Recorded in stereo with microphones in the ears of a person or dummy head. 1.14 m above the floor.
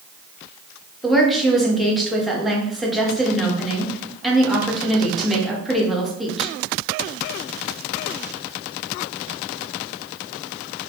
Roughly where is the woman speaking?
Centre.